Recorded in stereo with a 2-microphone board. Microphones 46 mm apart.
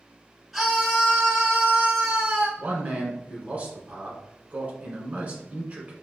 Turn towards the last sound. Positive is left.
turn(degrees=-35)  # may be behind; listen again after turning